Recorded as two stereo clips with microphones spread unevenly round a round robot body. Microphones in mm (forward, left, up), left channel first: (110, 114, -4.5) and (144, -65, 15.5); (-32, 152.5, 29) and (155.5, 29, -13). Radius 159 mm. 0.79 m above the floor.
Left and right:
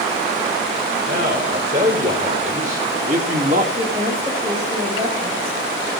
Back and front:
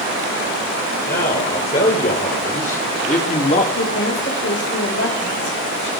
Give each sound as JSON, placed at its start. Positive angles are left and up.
{"t": 1.1, "sound": "a man speaking", "azimuth_deg": -145, "distance_m": 4.0}
{"t": 3.8, "sound": "a woman speaking", "azimuth_deg": -155, "distance_m": 4.0}